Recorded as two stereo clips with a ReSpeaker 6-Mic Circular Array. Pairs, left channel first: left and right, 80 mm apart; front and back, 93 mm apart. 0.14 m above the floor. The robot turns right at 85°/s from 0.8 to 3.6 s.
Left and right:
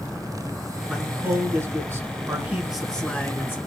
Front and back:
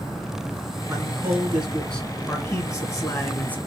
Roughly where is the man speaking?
Behind.